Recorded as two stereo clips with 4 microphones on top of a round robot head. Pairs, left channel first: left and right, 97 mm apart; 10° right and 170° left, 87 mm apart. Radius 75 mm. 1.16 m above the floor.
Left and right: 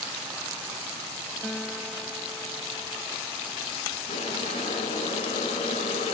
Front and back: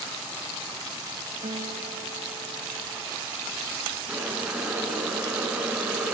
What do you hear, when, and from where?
1.4 s a guitar: 170° left, 1.6 m
4.1 s boiling: 90° left, 7 m